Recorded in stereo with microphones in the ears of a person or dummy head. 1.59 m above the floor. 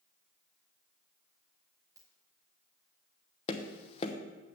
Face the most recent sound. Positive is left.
turn(degrees=40)  # may be behind; listen again after turning